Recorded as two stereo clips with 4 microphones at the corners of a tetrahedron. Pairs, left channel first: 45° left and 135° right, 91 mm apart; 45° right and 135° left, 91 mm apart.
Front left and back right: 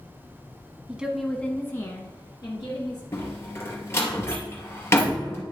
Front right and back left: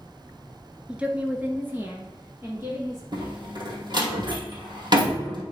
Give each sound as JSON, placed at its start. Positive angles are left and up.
{"t": 0.9, "sound": "a woman speaking", "azimuth_deg": -175, "distance_m": 1.1}
{"t": 3.1, "sound": "a door slam", "azimuth_deg": 105, "distance_m": 2.5}